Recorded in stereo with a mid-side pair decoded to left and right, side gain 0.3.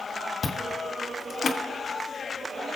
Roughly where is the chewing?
Ahead left.